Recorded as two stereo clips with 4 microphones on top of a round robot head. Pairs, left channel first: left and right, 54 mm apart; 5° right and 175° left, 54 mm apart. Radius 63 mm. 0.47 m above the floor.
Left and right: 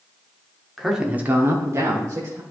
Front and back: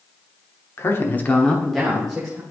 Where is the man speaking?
Straight ahead, 1.2 m; by 2.4 s 110° right, 2 m.